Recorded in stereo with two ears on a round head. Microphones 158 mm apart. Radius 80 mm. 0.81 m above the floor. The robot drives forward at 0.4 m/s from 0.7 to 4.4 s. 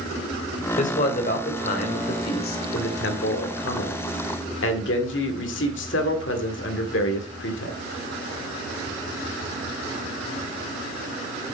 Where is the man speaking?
40° left (ahead or behind), 2.5 m; by 7.8 s 70° left (ahead or behind), 1.9 m.